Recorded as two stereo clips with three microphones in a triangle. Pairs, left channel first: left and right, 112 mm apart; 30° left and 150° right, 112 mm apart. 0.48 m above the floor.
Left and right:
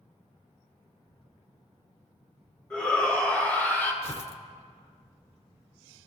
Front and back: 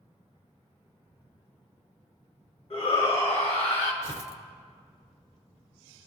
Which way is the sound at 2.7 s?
10° left.